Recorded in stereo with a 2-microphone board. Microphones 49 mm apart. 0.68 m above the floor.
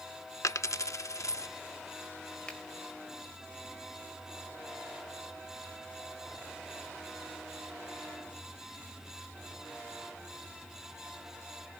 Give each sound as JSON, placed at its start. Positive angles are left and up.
{"t": 0.4, "sound": "a dropped coin", "side_deg": 85, "distance_m": 0.6}
{"t": 2.5, "sound": "a finger snap", "side_deg": 20, "distance_m": 3.0}